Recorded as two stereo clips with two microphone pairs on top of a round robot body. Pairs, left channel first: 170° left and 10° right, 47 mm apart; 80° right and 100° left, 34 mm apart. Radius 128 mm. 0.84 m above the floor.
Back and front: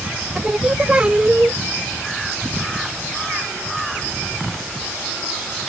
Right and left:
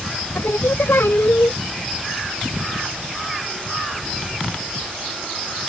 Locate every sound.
0.3 s singing: 80° right